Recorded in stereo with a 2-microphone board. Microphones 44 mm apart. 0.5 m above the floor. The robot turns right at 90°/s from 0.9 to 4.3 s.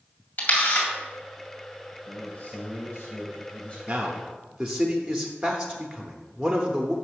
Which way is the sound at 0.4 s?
45° left (ahead or behind).